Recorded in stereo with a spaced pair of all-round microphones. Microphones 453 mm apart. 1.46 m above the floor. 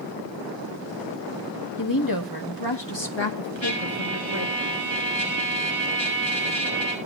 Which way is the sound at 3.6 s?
80° left.